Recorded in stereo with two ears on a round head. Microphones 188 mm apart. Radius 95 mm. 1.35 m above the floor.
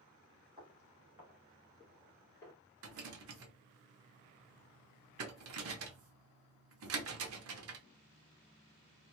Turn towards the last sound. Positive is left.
turn(degrees=-70)  # may be behind; listen again after turning